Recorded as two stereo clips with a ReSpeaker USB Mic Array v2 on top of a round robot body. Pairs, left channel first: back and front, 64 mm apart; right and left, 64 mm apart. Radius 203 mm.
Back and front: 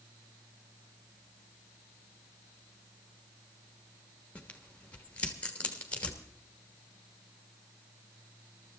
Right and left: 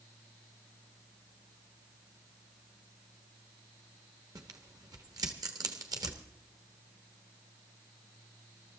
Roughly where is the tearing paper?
Left.